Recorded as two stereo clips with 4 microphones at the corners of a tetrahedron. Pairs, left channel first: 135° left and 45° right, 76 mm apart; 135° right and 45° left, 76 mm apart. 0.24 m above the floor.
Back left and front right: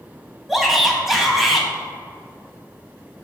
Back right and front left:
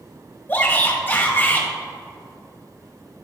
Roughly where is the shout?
Behind right.